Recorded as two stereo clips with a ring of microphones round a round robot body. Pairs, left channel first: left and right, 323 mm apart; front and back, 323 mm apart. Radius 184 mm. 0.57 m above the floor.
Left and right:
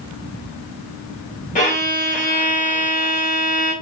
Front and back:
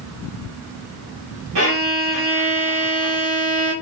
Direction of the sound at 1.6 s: 155° left.